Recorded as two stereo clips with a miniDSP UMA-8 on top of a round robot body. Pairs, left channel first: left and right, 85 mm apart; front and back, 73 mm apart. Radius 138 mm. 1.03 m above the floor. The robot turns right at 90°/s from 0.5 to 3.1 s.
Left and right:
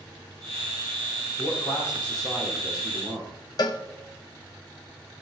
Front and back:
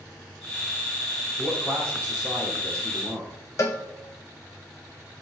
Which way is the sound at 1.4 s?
110° left.